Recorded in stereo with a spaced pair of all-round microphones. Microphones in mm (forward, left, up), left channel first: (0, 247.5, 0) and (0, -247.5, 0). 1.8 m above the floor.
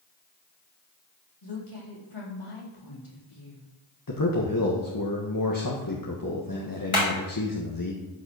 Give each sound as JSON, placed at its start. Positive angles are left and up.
{"t": 1.4, "sound": "a woman speaking", "side_deg": 80, "distance_m": 4.0}
{"t": 4.1, "sound": "a man speaking", "side_deg": 40, "distance_m": 1.5}
{"t": 6.9, "sound": "hammering", "side_deg": 75, "distance_m": 4.5}